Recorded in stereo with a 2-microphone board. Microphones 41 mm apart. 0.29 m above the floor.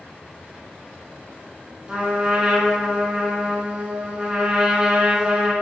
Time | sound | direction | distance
1.9 | a trumpet | 20° right (ahead or behind) | 0.7 m